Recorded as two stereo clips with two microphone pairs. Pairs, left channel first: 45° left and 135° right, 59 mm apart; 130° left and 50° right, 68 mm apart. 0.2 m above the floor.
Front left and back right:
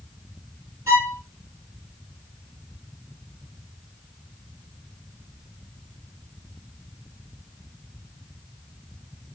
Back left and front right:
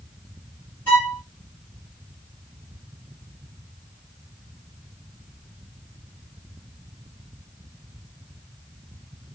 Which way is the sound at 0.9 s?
170° right.